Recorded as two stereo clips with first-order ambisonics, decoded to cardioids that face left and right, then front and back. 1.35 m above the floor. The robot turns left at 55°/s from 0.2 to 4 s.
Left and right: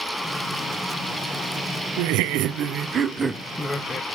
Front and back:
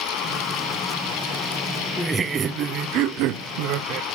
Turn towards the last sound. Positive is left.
turn(degrees=155)